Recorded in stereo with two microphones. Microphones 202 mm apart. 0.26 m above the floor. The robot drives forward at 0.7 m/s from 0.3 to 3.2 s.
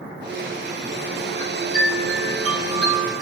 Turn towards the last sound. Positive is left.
turn(degrees=0)  # may be behind; listen again after turning